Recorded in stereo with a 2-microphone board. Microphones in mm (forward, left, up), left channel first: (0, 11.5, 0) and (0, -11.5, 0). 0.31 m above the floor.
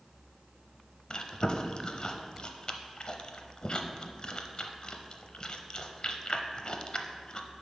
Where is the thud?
No thud in this recording.